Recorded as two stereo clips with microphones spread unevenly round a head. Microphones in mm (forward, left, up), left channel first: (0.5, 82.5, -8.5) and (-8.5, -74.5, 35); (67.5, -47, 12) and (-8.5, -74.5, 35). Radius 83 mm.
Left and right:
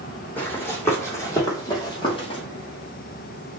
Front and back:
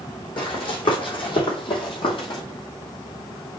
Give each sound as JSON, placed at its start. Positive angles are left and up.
{"t": 0.4, "sound": "running footsteps", "azimuth_deg": 0, "distance_m": 3.5}